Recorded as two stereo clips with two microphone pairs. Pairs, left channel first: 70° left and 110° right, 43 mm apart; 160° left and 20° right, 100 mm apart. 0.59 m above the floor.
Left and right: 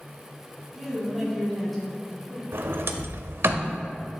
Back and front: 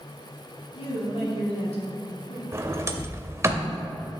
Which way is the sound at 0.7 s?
160° left.